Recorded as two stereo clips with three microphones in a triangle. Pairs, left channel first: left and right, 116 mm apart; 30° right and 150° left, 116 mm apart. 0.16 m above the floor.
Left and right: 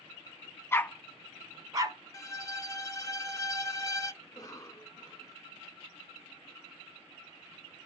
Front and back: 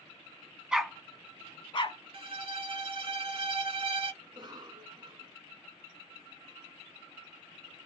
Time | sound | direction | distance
0.7 | a dog barking | 80° left | 0.5 m
2.1 | a violin | 140° left | 0.6 m
4.2 | a cough | 130° left | 1.5 m